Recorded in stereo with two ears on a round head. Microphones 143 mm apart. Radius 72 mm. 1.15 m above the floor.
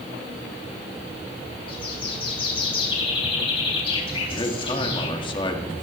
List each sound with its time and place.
1.7 s a bird: 30° left (ahead or behind), 3.5 m
4.3 s a man speaking: 30° left (ahead or behind), 1.7 m